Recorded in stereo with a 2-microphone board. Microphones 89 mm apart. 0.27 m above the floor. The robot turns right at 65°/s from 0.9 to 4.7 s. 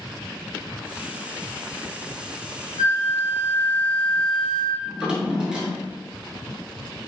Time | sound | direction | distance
2.8 | a flute | 85° left | 0.7 m
4.8 | a drawer | 10° right (ahead or behind) | 0.8 m